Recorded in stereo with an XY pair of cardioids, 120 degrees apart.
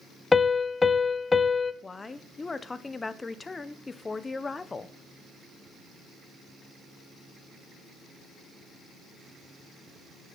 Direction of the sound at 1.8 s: 20° left.